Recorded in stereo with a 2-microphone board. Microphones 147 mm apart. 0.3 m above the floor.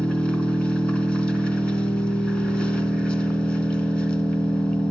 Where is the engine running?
5° left (ahead or behind), 1.4 m.